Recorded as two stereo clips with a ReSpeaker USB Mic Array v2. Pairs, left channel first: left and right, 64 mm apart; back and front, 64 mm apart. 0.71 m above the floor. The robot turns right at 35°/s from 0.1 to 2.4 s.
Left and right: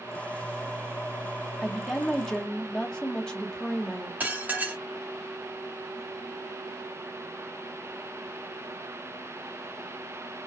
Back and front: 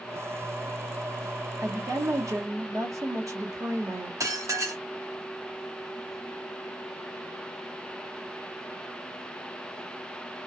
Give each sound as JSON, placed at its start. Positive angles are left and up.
{"t": 1.6, "sound": "a woman speaking", "azimuth_deg": -10, "distance_m": 0.9}
{"t": 4.2, "sound": "dishes clattering", "azimuth_deg": -25, "distance_m": 0.7}